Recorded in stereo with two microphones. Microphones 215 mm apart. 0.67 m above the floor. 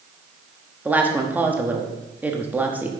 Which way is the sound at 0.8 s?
10° right (ahead or behind).